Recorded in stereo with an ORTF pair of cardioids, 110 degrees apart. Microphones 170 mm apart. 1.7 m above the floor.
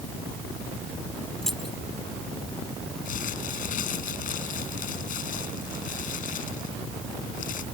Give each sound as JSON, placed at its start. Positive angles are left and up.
{"t": 1.4, "sound": "keys jangling", "azimuth_deg": 5}
{"t": 3.0, "sound": "crumpling", "azimuth_deg": 55}